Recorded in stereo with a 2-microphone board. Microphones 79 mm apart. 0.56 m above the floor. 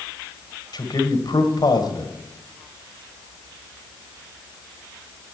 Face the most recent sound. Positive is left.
turn(degrees=60)  # may be behind; listen again after turning